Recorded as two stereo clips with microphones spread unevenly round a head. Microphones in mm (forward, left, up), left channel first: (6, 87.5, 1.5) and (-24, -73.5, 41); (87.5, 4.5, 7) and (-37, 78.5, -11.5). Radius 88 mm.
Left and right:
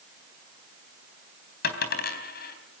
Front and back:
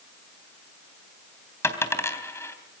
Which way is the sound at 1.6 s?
40° left.